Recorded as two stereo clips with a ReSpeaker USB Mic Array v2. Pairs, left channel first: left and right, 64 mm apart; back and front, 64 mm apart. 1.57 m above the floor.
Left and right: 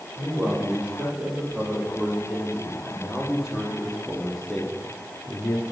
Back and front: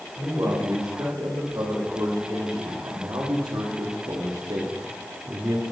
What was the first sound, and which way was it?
A man speaking, 20° right.